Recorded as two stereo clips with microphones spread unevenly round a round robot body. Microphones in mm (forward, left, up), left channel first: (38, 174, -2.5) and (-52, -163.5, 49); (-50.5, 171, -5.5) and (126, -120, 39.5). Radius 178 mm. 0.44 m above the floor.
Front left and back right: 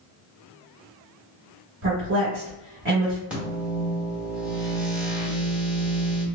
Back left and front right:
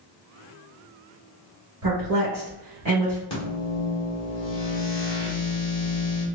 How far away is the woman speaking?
About 1.7 m.